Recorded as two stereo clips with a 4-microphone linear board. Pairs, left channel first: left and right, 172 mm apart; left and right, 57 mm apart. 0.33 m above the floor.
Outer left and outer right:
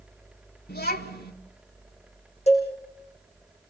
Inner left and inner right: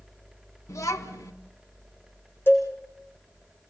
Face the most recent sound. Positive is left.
turn(degrees=40)  # may be behind; listen again after turning